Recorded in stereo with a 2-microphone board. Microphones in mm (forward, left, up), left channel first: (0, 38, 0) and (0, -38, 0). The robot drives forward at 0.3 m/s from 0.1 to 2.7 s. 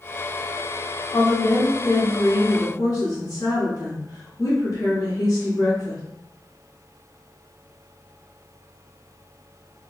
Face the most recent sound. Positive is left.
turn(degrees=55)  # may be behind; listen again after turning